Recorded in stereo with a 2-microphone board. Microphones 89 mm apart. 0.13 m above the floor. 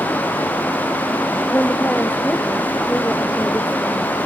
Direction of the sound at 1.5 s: 20° left (ahead or behind).